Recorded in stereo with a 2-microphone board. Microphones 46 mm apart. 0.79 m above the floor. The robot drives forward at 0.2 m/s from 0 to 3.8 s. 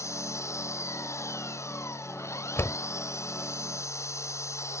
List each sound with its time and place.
0.0 s an engine running: 90° left
2.6 s a door slam: 70° left (ahead or behind); by 2.8 s 65° left (ahead or behind)